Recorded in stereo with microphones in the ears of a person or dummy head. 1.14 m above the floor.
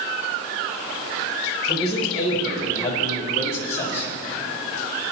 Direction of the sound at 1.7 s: 45° left (ahead or behind).